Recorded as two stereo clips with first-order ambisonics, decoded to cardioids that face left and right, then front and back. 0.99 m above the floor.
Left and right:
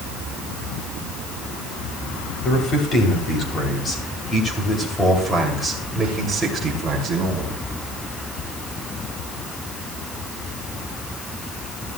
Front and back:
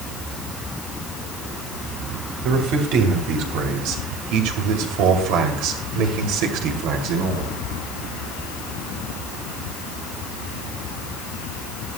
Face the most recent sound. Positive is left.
turn(degrees=-160)